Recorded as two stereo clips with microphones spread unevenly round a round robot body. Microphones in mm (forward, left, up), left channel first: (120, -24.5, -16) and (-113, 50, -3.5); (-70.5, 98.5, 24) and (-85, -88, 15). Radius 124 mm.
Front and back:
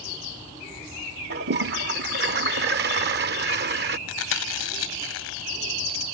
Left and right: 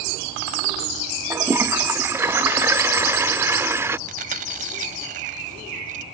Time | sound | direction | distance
1.3 | a toilet flushing | 165° right | ?
4.1 | chewing | 40° right | ?